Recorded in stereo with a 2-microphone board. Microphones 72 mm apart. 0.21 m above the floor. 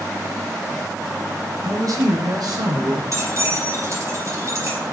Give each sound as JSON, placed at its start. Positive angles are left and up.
{"t": 1.6, "sound": "a man speaking", "side_deg": -50, "distance_m": 2.0}
{"t": 3.1, "sound": "keys jangling", "side_deg": -45, "distance_m": 4.0}